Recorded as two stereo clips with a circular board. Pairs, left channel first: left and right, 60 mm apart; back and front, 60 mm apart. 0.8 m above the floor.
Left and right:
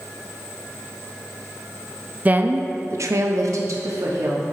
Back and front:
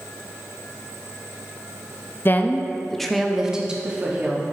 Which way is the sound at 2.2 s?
145° right.